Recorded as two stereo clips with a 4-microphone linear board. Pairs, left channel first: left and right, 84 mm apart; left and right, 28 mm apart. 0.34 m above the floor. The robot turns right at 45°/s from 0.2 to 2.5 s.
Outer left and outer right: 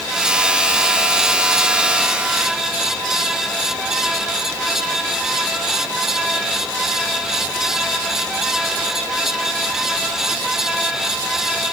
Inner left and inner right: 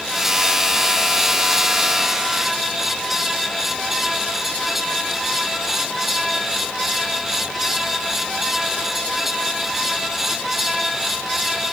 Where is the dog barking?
I don't hear a dog barking.